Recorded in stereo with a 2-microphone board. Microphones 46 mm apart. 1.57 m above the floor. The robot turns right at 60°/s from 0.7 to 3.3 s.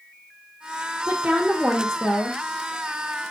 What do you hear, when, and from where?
1.1 s a woman speaking: 35° right, 1.2 m; by 2.4 s 45° left, 1.2 m